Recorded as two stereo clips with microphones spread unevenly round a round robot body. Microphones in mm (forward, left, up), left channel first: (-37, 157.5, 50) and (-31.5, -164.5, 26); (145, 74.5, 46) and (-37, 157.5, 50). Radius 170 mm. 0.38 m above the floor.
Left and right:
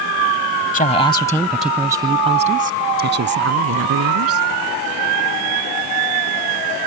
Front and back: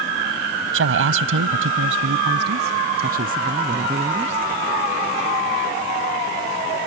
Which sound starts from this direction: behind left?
A woman speaking, at 0.7 s.